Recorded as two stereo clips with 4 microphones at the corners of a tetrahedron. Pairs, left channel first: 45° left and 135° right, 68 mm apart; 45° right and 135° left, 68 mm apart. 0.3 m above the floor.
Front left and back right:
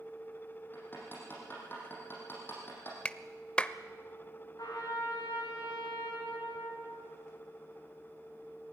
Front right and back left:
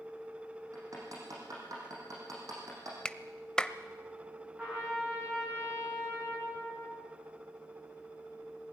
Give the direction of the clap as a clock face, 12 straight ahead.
12 o'clock.